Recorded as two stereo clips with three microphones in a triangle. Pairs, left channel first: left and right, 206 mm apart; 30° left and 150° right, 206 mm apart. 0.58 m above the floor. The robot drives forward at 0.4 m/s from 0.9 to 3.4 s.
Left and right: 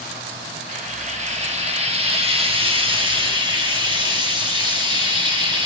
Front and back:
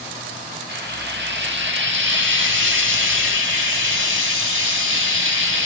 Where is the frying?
140° right, 1.5 m; by 5.7 s 155° right, 2 m.